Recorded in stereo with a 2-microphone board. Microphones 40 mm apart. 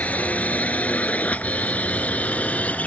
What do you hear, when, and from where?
0.0 s a drone: 40° left (ahead or behind)